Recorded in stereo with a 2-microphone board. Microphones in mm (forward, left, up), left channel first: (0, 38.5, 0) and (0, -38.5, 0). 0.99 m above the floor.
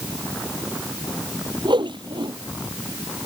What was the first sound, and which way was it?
A whoosh, 85° right.